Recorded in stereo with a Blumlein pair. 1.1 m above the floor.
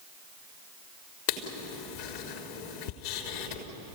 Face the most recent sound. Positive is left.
turn(degrees=50)